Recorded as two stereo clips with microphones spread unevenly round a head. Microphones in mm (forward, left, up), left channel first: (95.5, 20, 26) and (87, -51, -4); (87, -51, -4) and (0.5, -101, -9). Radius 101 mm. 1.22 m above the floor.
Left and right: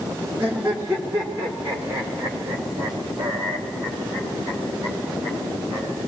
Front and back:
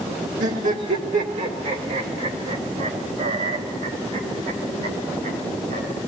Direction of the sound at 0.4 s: Straight behind.